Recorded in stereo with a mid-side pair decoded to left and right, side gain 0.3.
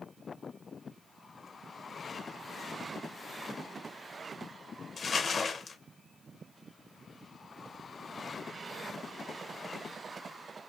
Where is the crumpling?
55° left, 0.7 m.